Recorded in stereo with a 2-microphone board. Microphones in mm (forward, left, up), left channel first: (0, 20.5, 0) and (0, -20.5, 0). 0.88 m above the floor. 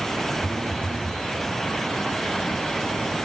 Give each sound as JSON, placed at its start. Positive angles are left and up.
{"t": 0.4, "sound": "a phone buzzing", "side_deg": -30, "distance_m": 1.0}